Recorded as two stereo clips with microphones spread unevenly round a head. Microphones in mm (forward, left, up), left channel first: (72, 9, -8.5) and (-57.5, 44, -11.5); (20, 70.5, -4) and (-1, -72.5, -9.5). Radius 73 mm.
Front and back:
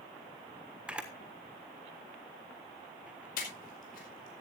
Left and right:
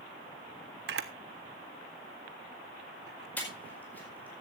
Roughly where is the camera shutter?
Behind right.